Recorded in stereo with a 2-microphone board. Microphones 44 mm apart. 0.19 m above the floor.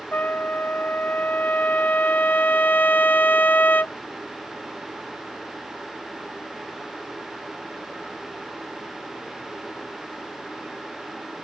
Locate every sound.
0.1 s a trumpet: 45° left (ahead or behind)